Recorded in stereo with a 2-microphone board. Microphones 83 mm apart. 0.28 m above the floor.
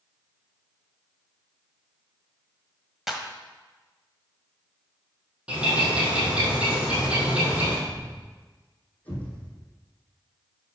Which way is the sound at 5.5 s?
15° right (ahead or behind).